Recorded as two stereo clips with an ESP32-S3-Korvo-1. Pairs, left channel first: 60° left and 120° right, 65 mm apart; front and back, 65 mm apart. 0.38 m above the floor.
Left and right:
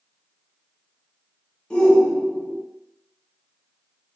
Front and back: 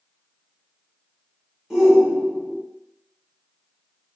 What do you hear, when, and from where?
1.7 s a shout: 110° left, 0.8 m